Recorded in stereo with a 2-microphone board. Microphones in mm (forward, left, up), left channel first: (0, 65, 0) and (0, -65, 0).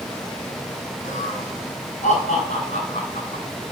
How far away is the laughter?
About 5.5 m.